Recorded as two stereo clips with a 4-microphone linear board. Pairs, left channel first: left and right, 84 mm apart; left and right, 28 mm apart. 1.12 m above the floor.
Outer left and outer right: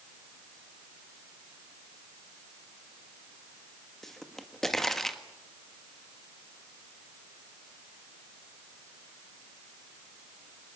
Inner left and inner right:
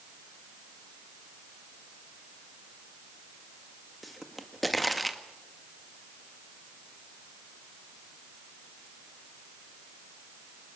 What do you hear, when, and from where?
4.0 s a pop: 5° left (ahead or behind), 1.7 m